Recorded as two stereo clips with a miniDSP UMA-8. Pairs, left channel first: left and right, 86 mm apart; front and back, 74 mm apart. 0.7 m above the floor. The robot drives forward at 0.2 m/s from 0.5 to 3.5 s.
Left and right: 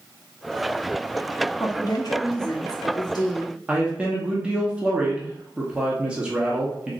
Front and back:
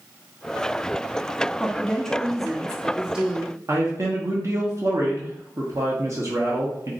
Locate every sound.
1.6 s a woman speaking: 70° left, 0.7 m; by 3.6 s 115° left, 0.7 m
3.7 s a man speaking: 160° right, 0.9 m